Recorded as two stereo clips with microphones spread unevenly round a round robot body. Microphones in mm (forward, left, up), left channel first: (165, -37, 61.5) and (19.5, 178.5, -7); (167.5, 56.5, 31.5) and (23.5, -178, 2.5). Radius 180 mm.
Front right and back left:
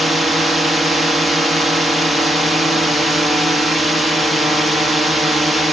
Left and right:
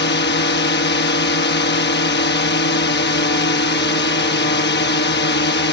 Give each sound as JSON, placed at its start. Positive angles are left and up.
{"t": 0.0, "sound": "a drone", "azimuth_deg": 60}